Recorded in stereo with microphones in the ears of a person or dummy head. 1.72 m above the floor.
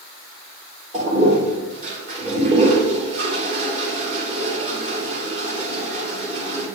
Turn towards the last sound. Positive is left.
turn(degrees=-40)  # may be behind; listen again after turning